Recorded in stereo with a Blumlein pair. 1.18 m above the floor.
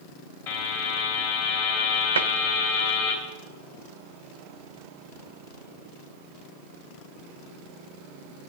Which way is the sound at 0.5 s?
55° left.